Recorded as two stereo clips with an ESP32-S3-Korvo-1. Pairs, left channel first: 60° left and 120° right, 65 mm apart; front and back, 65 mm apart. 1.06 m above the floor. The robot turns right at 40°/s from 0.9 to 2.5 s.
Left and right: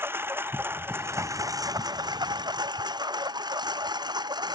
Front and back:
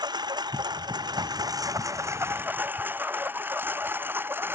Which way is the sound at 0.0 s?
Straight behind.